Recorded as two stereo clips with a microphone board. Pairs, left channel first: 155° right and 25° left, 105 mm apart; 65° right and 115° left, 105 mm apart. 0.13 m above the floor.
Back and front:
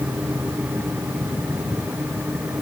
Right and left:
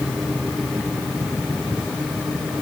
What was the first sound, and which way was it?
Only background noise.